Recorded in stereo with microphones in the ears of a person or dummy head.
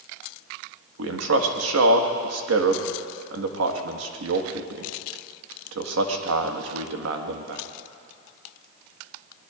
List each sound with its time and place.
1.0 s a man speaking: 80° right, 1.6 m